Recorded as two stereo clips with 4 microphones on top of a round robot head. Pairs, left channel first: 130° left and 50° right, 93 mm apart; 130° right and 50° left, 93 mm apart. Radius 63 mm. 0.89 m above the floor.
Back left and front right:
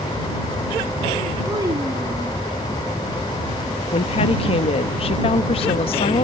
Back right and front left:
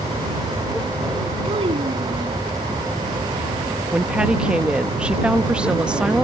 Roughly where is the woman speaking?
Behind left.